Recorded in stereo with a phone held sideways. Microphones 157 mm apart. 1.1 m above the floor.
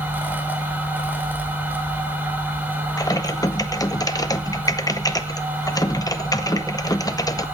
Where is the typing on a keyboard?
25° left (ahead or behind), 1.0 m.